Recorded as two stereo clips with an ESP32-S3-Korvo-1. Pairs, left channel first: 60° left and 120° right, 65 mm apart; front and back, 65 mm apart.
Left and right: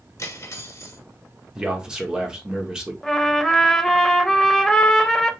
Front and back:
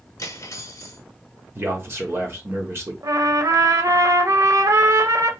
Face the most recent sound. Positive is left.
turn(degrees=145)